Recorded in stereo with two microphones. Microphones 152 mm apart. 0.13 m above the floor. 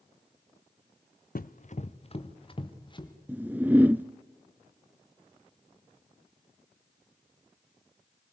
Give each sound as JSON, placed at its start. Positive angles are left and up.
{"t": 1.4, "sound": "running footsteps", "side_deg": 70, "distance_m": 0.8}
{"t": 3.3, "sound": "a whoosh", "side_deg": -10, "distance_m": 0.6}